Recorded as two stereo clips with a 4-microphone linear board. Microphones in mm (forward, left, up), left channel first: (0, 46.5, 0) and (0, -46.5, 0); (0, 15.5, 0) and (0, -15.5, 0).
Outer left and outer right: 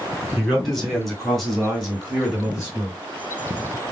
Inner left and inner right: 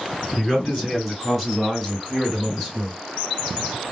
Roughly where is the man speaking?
Centre.